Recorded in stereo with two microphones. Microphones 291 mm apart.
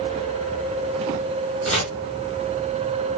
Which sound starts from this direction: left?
Chopping, at 1.6 s.